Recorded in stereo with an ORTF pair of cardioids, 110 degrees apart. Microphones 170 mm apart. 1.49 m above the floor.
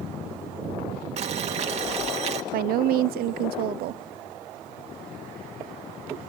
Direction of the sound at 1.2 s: 40° right.